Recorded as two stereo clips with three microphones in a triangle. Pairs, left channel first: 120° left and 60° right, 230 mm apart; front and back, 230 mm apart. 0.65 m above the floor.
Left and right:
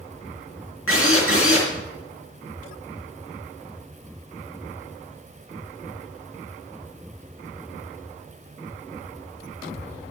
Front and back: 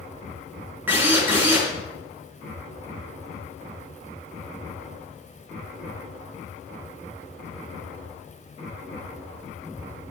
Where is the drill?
100° left, 4 m.